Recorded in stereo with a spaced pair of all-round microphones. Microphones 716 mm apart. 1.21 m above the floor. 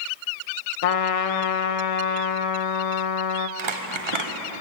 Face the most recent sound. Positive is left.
turn(degrees=-40)  # may be behind; listen again after turning